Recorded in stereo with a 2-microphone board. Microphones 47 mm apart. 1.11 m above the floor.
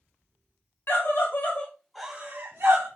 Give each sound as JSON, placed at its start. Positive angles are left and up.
{"t": 0.9, "sound": "a scream", "side_deg": 55, "distance_m": 1.2}